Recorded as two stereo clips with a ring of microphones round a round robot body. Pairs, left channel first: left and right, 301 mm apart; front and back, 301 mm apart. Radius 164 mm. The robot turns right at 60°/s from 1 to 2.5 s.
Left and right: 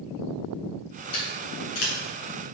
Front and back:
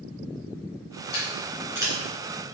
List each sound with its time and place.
1.1 s scissors: 60° left, 3 m; by 1.9 s 105° left, 3 m